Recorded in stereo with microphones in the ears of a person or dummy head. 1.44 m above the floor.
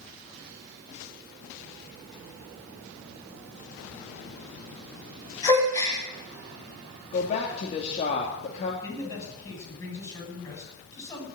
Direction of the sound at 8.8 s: 15° left (ahead or behind).